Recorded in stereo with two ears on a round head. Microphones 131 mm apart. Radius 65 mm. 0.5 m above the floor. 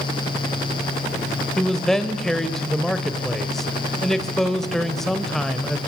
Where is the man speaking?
Centre (ahead or behind), 1.8 m.